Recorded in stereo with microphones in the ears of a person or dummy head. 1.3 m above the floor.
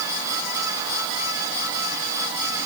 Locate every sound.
Only background noise.